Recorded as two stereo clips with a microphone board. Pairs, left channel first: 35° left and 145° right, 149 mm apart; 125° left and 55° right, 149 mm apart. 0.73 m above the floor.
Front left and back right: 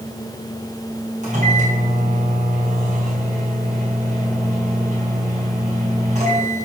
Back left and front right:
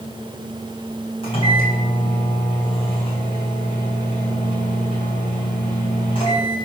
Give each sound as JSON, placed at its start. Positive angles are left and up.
{"t": 1.2, "sound": "a microwave", "azimuth_deg": 175, "distance_m": 4.5}